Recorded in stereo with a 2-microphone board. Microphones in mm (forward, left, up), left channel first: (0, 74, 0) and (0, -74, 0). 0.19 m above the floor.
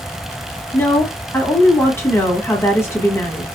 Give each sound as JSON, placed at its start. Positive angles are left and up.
{"t": 0.7, "sound": "a woman speaking", "side_deg": 15, "distance_m": 1.2}